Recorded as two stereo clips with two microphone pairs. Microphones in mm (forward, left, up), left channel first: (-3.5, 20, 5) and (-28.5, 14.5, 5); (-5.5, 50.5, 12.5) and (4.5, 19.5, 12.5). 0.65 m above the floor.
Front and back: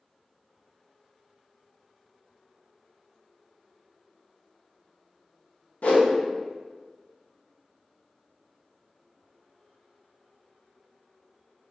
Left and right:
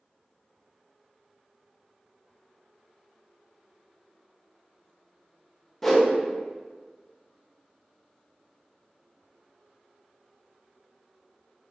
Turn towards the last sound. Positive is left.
turn(degrees=25)